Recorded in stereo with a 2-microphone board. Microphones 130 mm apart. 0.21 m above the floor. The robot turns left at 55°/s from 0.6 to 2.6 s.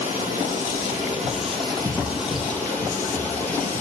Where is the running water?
85° right, 4.5 m; by 3.8 s 165° left, 4.5 m.